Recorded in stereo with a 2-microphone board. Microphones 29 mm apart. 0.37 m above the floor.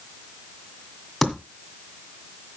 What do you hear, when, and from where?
1.2 s typing on a keyboard: centre (ahead or behind), 1.8 m